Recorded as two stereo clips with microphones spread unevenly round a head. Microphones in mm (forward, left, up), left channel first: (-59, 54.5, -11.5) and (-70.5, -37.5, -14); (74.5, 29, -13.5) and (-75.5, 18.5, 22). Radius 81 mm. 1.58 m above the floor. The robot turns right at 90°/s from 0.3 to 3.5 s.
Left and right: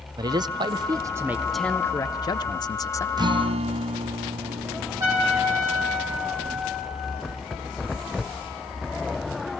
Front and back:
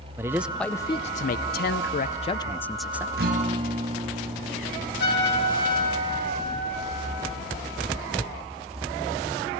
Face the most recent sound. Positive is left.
turn(degrees=-30)